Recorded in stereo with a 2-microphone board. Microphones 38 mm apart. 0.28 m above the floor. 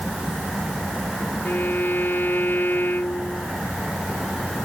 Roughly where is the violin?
Left.